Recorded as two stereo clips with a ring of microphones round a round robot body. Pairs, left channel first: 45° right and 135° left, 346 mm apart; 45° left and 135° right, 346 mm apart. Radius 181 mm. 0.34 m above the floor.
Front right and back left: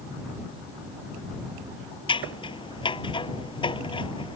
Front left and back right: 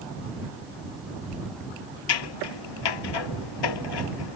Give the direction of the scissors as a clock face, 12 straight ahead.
11 o'clock.